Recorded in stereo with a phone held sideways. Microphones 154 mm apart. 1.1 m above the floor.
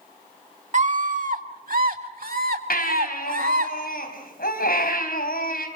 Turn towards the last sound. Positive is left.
turn(degrees=70)  # may be behind; listen again after turning